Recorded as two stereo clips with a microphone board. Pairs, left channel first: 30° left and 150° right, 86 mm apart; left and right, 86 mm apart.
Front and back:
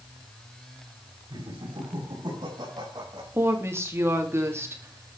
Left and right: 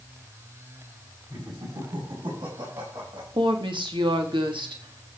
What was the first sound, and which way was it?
Laughter, 125° right.